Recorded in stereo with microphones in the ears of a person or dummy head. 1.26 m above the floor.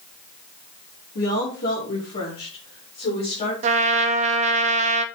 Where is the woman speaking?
65° left (ahead or behind), 2.5 m; by 3.5 s 50° left (ahead or behind), 4 m.